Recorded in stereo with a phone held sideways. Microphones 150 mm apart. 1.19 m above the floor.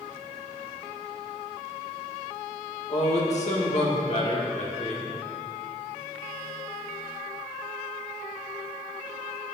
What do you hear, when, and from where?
2.9 s a man speaking: 50° left (ahead or behind), 1.7 m